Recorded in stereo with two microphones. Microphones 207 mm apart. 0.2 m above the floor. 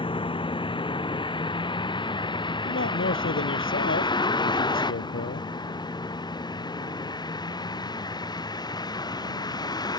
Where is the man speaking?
70° left (ahead or behind).